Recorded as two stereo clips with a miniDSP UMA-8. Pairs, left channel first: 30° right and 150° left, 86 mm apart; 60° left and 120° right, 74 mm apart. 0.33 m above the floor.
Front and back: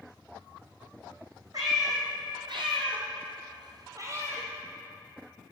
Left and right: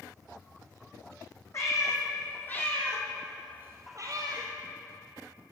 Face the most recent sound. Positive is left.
turn(degrees=-145)